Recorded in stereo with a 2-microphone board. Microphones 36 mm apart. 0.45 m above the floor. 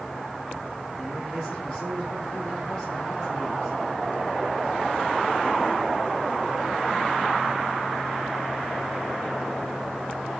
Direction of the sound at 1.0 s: 20° left (ahead or behind).